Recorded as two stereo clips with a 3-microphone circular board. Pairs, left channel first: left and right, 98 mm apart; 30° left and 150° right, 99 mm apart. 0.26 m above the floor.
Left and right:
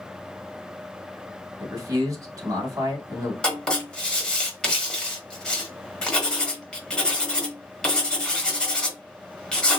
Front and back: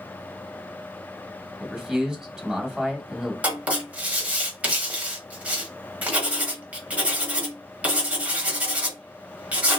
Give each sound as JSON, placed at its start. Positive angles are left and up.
{"t": 1.6, "sound": "a man speaking", "azimuth_deg": -70, "distance_m": 1.3}
{"t": 3.4, "sound": "writing", "azimuth_deg": 160, "distance_m": 1.0}